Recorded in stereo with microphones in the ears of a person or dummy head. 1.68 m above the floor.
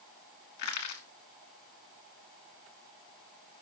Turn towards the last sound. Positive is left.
turn(degrees=50)  # may be behind; listen again after turning